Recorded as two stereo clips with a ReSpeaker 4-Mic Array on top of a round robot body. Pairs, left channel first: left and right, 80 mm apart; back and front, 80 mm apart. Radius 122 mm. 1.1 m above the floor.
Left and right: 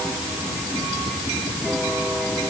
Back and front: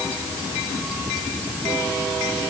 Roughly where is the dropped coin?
I don't hear a dropped coin.